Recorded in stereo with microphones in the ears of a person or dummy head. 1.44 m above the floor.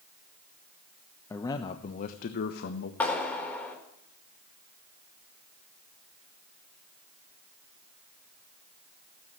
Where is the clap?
10° left (ahead or behind), 3.5 m.